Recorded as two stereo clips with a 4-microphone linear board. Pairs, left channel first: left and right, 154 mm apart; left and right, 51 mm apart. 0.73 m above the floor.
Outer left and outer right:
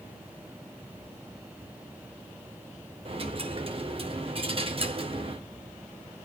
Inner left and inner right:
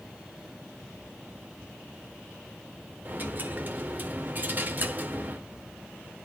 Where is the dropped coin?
40° right (ahead or behind), 0.9 m.